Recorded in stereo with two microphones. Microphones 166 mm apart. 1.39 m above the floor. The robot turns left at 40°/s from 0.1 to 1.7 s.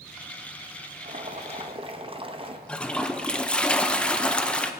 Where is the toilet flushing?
5° left (ahead or behind), 0.6 m.